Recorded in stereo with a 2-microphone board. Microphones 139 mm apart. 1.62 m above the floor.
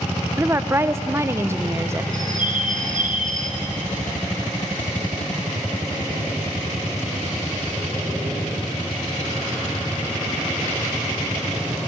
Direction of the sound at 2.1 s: 70° right (ahead or behind).